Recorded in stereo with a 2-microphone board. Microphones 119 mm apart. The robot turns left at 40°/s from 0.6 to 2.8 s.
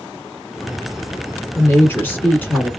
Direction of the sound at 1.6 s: 20° left (ahead or behind).